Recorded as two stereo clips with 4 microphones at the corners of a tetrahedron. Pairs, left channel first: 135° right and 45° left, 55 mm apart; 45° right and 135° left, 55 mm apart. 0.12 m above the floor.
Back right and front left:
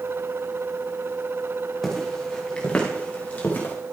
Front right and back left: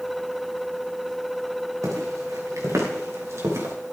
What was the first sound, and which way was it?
Footsteps, 140° left.